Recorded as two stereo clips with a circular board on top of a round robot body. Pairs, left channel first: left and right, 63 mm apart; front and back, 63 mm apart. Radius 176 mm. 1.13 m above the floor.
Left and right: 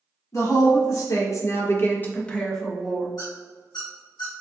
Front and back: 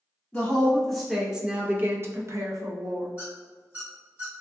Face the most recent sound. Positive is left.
turn(degrees=115)